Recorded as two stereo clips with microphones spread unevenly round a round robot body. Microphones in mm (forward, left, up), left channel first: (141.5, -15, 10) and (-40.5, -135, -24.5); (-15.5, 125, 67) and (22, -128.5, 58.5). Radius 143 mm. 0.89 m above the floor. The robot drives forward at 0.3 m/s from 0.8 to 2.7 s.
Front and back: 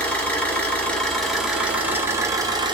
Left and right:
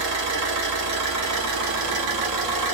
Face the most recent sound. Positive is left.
turn(degrees=-75)